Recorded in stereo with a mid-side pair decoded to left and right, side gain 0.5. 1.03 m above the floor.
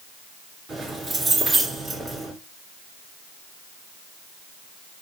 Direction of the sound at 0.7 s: 40° right.